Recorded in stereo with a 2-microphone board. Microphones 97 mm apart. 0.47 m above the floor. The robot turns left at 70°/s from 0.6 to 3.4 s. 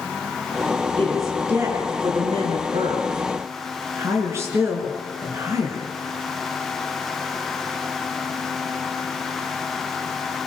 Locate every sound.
1.0 s a woman speaking: 20° left (ahead or behind), 7 m; by 5.8 s 30° right (ahead or behind), 7 m